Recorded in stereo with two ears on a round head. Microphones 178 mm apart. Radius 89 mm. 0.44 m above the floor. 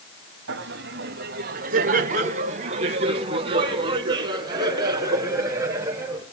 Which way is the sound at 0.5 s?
60° right (ahead or behind).